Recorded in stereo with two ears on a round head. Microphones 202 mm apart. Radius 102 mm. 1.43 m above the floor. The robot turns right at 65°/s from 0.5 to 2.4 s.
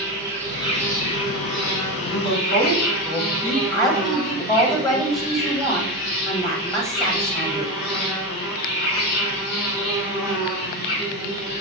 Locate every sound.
0.0 s an insect: 10° left, 1.2 m; by 11.6 s 135° left, 1.2 m
2.1 s a woman speaking: 45° left (ahead or behind), 2 m; by 3.6 s 25° left (ahead or behind), 2 m
3.7 s a woman speaking: 15° left (ahead or behind), 0.8 m